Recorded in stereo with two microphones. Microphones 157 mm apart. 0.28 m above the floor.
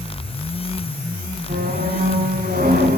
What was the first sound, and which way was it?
A squeak, 75° right (ahead or behind).